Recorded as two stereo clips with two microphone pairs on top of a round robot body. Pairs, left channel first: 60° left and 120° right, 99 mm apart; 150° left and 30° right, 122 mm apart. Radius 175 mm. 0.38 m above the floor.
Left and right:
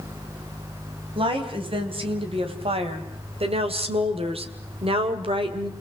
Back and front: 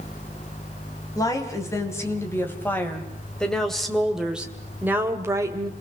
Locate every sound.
1.1 s a woman speaking: 150° right, 4 m; by 5.7 s 90° right, 2.5 m